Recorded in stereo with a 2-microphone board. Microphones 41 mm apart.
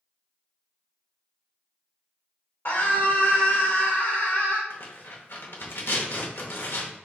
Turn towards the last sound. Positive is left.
turn(degrees=65)  # may be behind; listen again after turning